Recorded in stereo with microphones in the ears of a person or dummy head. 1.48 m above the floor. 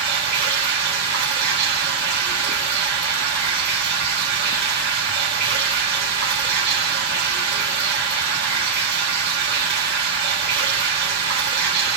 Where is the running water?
65° right (ahead or behind), 1.5 m.